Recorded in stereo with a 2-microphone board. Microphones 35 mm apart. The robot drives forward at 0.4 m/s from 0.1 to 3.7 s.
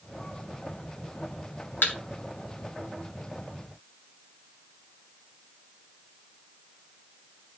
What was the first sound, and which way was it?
A thud, 75° left (ahead or behind).